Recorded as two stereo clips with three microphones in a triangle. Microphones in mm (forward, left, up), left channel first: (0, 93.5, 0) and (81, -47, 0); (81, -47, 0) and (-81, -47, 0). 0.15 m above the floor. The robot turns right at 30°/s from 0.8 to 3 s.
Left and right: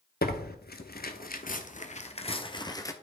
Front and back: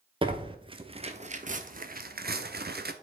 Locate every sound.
0.2 s tearing paper: 125° left, 0.7 m; by 2.9 s 170° right, 0.7 m